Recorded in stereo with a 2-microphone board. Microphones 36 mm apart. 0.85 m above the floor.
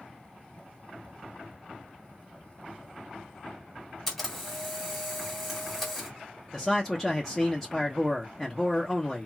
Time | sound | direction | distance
4.1 | a camera shutter | 5° left (ahead or behind) | 1.9 m
6.5 | a man speaking | 10° left (ahead or behind) | 0.6 m